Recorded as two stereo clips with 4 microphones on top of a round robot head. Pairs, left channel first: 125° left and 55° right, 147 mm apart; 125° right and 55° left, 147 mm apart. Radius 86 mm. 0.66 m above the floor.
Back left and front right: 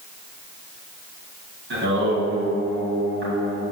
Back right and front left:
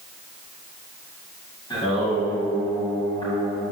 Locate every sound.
1.7 s singing: 60° right, 2.5 m